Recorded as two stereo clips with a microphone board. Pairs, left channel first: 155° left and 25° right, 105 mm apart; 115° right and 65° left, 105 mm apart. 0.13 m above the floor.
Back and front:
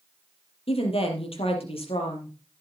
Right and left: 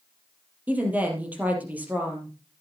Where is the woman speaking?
145° left, 3.5 m.